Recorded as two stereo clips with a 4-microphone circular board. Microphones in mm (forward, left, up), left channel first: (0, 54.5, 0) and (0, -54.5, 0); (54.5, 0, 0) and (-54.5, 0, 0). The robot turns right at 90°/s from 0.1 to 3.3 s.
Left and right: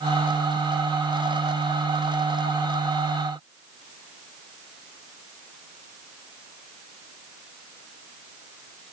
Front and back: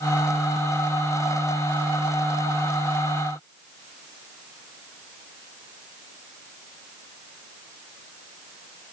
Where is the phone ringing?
No phone ringing in this recording.